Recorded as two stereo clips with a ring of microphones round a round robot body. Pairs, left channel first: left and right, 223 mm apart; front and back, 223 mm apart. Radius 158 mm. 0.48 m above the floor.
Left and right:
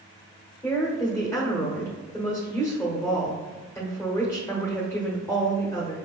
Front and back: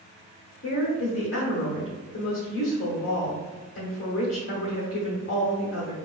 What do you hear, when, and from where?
0.6 s a woman speaking: 15° left, 1.3 m